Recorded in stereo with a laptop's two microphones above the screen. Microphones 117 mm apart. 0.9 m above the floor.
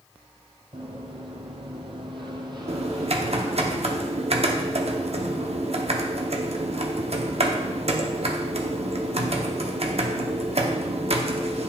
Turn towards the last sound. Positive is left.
turn(degrees=-60)  # may be behind; listen again after turning